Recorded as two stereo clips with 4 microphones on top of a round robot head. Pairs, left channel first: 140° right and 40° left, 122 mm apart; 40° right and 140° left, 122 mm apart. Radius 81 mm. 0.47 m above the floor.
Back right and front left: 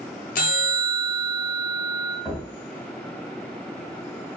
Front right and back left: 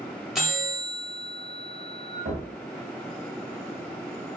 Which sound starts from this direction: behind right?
A bell, at 0.3 s.